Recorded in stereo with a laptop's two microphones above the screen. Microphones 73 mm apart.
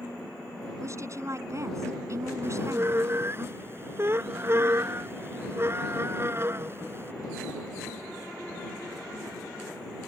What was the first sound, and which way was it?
A woman speaking, 45° right (ahead or behind).